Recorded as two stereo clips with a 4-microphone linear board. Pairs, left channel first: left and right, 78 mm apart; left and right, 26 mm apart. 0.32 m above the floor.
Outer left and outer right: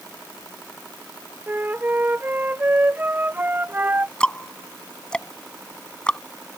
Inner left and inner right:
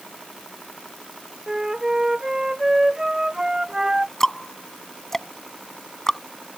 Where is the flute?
20° right (ahead or behind).